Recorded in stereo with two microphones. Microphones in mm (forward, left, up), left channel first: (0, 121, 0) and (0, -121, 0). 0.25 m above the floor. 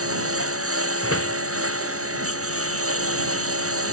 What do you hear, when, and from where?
0.0 s a lawn mower: 65° right (ahead or behind)
1.0 s a door slam: 65° left (ahead or behind)